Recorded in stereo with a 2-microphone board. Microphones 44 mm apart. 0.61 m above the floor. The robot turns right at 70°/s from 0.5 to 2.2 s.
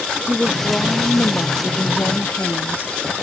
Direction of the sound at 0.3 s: 5° left.